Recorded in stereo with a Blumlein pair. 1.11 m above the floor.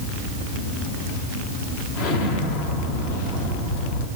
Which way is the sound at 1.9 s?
50° left.